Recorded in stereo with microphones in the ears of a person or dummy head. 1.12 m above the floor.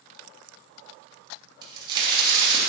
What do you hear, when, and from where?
1.6 s a crack: 35° right (ahead or behind), 2.5 m